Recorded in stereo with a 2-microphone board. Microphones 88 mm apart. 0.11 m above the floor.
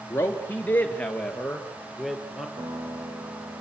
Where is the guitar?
80° right, 8.5 m.